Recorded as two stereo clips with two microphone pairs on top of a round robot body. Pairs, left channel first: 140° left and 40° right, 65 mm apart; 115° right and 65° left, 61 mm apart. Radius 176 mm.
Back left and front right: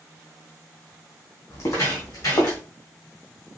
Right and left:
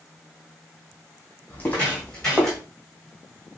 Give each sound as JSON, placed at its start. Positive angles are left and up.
{"t": 1.5, "sound": "footsteps", "azimuth_deg": 180, "distance_m": 1.5}